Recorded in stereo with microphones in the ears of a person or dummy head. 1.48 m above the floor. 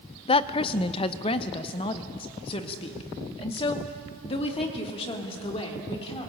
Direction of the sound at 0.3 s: 30° left (ahead or behind).